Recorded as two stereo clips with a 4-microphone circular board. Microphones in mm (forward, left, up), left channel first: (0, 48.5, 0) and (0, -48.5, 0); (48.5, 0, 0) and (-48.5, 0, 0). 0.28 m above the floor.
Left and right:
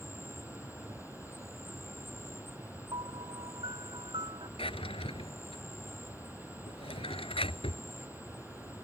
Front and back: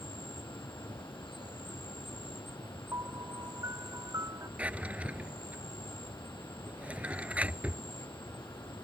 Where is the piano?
125° right.